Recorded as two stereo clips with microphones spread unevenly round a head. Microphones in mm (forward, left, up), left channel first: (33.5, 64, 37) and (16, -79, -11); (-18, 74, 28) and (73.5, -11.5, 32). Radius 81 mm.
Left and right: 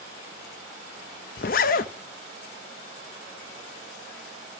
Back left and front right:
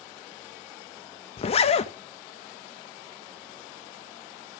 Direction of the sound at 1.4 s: 95° left.